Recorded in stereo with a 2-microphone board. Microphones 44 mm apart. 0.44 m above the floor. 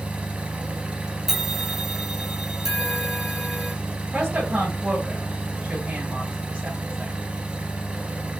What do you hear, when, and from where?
0.0 s an engine running: 30° right (ahead or behind), 0.8 m
1.3 s a bell: 10° right (ahead or behind), 0.6 m
4.1 s a woman speaking: 30° right (ahead or behind), 1.8 m